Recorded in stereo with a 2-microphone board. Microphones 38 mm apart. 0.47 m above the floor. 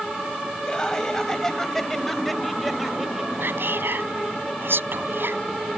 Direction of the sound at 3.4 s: 70° right (ahead or behind).